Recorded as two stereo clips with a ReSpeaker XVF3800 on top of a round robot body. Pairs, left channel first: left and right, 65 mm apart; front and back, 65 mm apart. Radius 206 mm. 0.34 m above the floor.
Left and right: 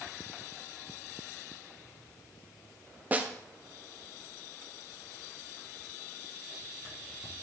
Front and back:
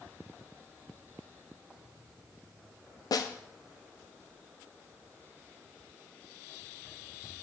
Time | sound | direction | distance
3.1 | a snare drum | 25° right | 0.7 m